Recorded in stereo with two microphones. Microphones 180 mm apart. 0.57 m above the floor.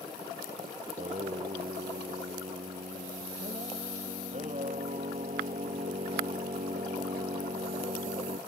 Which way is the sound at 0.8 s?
40° right (ahead or behind).